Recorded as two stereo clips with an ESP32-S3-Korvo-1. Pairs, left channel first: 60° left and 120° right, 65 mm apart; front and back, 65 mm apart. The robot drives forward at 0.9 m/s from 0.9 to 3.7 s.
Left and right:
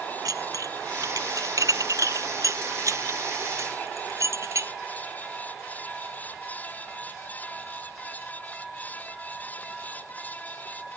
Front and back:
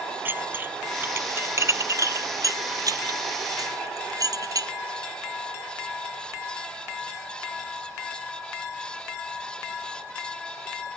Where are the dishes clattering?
125° right; by 4.7 s 160° right.